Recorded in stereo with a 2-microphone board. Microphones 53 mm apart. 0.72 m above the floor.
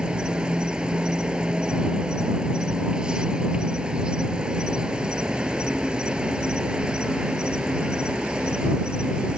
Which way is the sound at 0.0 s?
15° right (ahead or behind).